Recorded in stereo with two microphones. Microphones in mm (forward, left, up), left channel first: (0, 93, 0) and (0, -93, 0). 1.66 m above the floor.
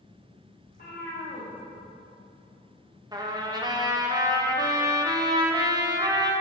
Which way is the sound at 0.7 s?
55° left (ahead or behind).